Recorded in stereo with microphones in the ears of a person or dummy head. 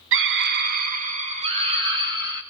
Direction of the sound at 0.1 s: 60° right (ahead or behind).